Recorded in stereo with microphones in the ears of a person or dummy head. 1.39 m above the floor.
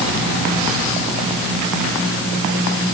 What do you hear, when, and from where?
Only background noise.